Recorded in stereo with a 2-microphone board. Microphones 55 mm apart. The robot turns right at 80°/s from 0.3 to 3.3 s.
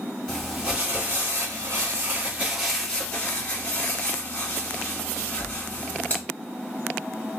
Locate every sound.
0.3 s crumpling: 170° left, 1.4 m; by 6.2 s 50° left, 1.4 m